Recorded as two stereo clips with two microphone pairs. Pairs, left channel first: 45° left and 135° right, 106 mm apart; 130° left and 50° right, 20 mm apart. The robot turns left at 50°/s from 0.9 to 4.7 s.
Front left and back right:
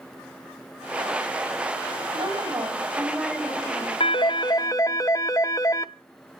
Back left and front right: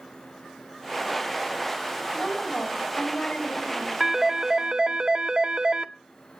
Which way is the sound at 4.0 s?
30° left.